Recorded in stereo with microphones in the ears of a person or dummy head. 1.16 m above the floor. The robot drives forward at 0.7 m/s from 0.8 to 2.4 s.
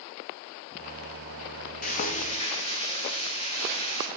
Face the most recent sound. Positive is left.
turn(degrees=30)  # may be behind; listen again after turning